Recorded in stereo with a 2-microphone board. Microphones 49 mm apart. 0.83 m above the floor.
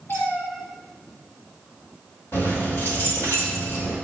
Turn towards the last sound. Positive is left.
turn(degrees=55)  # may be behind; listen again after turning